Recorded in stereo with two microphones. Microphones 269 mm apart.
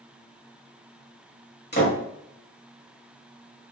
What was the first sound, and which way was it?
A door slam, 40° left (ahead or behind).